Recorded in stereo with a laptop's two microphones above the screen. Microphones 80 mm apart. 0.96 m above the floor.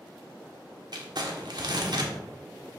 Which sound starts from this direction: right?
Crumpling, at 0.9 s.